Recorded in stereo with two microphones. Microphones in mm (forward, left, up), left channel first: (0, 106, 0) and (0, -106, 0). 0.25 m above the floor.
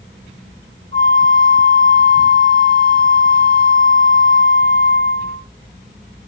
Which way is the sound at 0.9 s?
65° right (ahead or behind).